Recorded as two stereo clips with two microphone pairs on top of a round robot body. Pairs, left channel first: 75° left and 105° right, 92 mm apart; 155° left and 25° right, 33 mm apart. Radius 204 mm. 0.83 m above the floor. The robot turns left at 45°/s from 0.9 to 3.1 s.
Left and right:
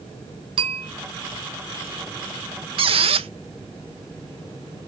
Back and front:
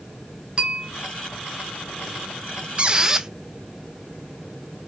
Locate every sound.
0.6 s a bell: 75° right, 1.1 m
2.8 s a squeak: 85° right, 0.6 m; by 3.3 s 100° right, 0.6 m